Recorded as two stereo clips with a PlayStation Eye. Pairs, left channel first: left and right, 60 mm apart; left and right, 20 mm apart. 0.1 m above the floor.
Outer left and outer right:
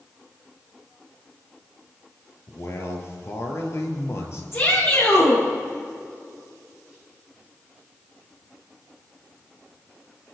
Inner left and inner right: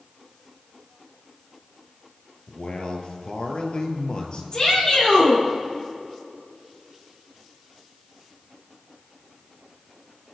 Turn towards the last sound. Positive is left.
turn(degrees=45)  # may be behind; listen again after turning